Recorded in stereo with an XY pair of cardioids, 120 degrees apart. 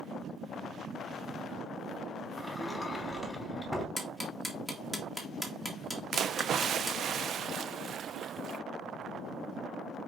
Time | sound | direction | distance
2.4 | a sliding door | straight ahead | 4 m
4.0 | ticking | 5° right | 2.0 m
6.1 | a splash | 50° right | 0.5 m